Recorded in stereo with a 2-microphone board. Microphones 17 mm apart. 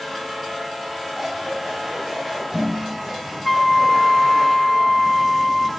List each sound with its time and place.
1.1 s scissors: 45° right (ahead or behind), 8.5 m
3.5 s a flute: 5° left (ahead or behind), 0.7 m